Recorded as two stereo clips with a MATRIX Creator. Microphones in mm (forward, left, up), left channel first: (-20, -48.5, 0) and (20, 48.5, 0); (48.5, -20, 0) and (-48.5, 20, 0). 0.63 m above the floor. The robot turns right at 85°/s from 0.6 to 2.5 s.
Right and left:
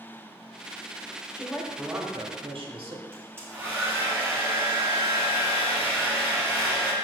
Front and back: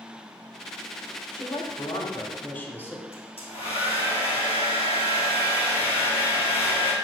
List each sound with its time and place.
1.3 s a woman speaking: 55° right, 1.6 m; by 3.0 s 45° left, 1.6 m
3.1 s a hair dryer: straight ahead, 2.5 m